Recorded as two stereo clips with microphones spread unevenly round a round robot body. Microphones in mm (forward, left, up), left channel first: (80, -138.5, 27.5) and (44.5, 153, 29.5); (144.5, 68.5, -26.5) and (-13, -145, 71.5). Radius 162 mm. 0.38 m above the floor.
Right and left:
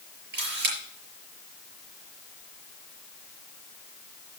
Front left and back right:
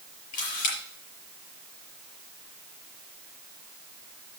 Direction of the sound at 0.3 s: 40° left.